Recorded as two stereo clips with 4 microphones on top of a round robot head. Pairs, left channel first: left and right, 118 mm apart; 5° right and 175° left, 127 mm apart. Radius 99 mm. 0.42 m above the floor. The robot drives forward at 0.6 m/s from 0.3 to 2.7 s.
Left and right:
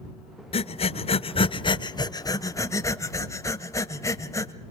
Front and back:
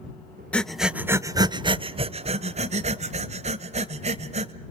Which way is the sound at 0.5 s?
75° left.